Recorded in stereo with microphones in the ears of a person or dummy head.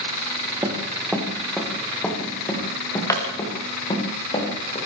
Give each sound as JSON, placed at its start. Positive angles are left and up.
{"t": 0.6, "sound": "running footsteps", "side_deg": -15, "distance_m": 4.0}